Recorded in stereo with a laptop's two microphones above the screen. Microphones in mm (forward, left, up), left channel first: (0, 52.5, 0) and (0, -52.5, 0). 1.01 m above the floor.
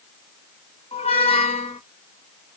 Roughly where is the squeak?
Left.